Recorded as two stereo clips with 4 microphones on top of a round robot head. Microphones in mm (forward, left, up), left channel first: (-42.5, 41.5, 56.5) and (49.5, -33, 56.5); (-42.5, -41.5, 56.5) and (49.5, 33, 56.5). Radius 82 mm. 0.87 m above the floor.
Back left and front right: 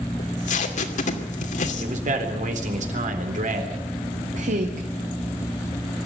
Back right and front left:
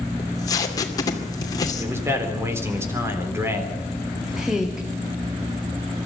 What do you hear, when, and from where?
0.2 s tape being pulled: 160° left, 2.5 m
1.8 s a man speaking: 30° right, 3.5 m
4.3 s a woman speaking: 45° right, 1.9 m